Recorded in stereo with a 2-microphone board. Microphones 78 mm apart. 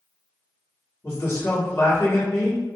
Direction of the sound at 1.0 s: 35° left (ahead or behind).